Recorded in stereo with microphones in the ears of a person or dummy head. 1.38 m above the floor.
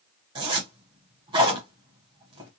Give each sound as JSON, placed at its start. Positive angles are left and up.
{"t": 0.3, "sound": "a zipper", "side_deg": -20, "distance_m": 0.8}